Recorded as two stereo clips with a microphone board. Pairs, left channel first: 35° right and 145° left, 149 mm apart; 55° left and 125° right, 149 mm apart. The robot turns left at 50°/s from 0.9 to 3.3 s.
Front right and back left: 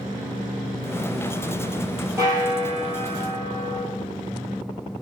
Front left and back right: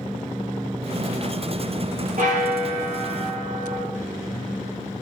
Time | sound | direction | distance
2.2 | a bell | 145° right | 3 m